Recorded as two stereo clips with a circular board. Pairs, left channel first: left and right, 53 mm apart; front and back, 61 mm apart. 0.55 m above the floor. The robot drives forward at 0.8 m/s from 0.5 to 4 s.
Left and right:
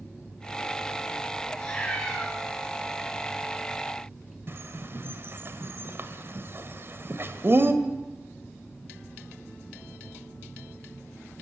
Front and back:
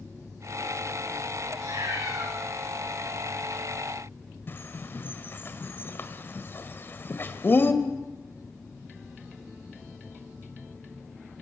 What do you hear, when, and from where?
1.6 s a cat meowing: 165° left, 9.5 m
4.5 s a bird: 50° right, 2 m